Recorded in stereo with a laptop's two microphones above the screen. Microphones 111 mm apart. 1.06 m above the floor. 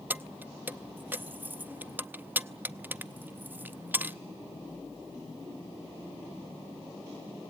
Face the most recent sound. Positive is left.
turn(degrees=-15)  # may be behind; listen again after turning